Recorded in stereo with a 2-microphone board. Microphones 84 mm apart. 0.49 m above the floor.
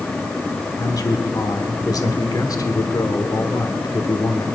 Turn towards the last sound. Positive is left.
turn(degrees=45)  # may be behind; listen again after turning